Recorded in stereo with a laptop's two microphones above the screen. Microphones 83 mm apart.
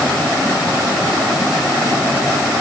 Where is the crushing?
I don't hear crushing.